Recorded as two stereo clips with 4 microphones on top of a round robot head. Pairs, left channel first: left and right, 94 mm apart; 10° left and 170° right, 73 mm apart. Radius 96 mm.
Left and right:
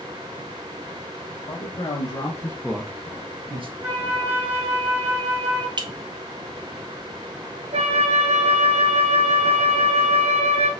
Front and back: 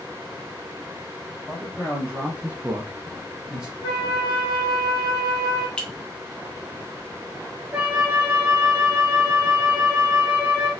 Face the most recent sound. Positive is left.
turn(degrees=-100)